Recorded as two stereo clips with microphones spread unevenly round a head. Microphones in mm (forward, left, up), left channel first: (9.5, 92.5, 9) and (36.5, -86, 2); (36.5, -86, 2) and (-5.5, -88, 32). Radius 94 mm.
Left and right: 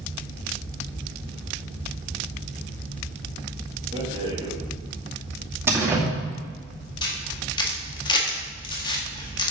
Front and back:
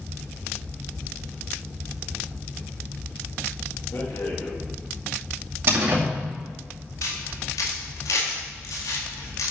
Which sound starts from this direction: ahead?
A rattle, at 3.9 s.